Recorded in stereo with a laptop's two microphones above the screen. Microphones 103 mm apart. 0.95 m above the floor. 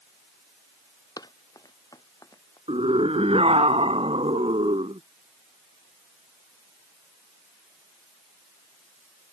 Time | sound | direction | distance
1.2 | running footsteps | 40° left (ahead or behind) | ?
2.7 | a scream | 70° right (ahead or behind) | ?